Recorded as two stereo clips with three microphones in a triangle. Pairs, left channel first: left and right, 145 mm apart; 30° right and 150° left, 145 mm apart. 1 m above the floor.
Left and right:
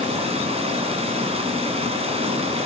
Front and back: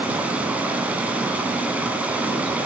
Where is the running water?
130° right, 2 m.